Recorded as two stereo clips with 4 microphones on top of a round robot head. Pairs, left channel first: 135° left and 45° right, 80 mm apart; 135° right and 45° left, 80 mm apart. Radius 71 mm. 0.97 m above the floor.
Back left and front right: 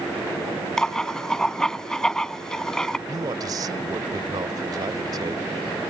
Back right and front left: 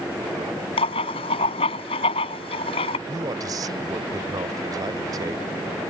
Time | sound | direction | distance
0.8 | writing | 145° right | ?
3.1 | a man speaking | straight ahead | ?